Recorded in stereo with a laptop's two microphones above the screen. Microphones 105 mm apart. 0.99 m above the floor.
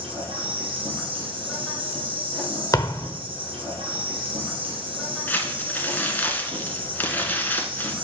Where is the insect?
65° right (ahead or behind), 2.5 m.